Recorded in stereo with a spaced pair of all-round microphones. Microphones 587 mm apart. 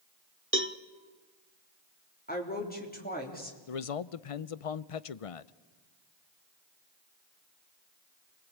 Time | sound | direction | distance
0.5 | a cowbell | 20° right (ahead or behind) | 1.0 m
2.3 | a woman speaking | 15° left (ahead or behind) | 3.5 m
3.7 | a man speaking | 65° left (ahead or behind) | 0.7 m